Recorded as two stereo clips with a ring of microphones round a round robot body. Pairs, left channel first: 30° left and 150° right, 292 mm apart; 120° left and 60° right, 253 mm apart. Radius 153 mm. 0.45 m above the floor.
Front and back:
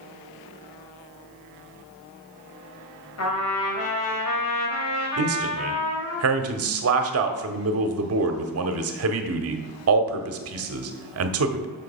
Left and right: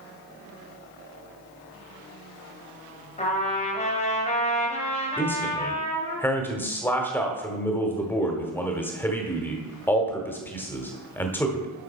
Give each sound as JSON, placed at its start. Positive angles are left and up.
{"t": 3.2, "sound": "a trumpet", "azimuth_deg": 60, "distance_m": 3.0}
{"t": 5.2, "sound": "a man speaking", "azimuth_deg": -160, "distance_m": 1.3}